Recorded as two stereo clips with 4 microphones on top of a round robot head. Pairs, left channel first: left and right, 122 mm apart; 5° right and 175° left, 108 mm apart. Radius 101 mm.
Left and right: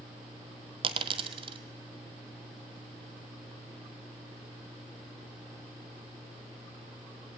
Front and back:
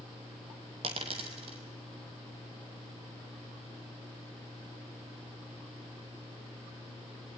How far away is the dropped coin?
About 1.3 m.